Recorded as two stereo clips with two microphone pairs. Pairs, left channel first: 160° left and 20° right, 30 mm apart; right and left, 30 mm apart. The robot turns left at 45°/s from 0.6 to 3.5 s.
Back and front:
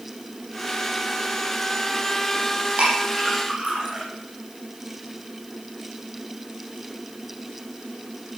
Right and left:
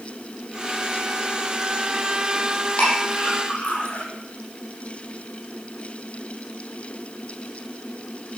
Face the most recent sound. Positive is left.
turn(degrees=-75)